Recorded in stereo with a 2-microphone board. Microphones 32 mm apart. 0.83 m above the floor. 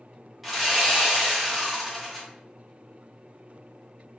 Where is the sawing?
10° right (ahead or behind), 1.0 m.